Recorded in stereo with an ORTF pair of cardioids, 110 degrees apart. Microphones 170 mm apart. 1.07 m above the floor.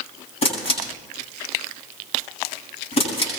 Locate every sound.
0.4 s a camera shutter: 35° left, 9 m